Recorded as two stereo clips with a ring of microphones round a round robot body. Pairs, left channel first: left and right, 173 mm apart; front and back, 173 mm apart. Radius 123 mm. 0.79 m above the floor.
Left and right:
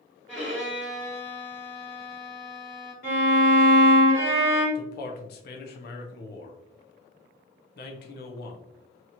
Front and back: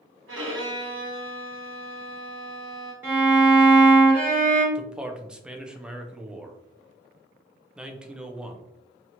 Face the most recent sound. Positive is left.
turn(degrees=95)